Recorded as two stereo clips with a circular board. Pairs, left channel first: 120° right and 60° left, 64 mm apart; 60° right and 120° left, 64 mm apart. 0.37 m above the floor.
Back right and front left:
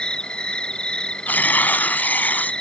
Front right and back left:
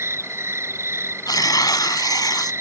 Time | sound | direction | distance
0.0 | an insect | 165° left | ?
1.3 | tearing paper | 55° right | ?